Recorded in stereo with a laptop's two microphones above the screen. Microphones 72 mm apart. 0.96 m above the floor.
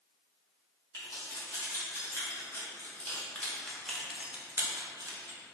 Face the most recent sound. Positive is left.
turn(degrees=-70)  # may be behind; listen again after turning